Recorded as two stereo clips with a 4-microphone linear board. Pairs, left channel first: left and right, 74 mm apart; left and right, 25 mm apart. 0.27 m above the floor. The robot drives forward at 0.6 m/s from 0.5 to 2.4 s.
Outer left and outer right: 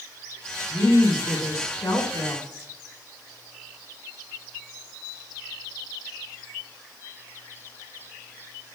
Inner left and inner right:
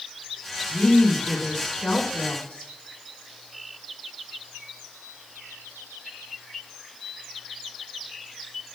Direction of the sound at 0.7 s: 50° left (ahead or behind).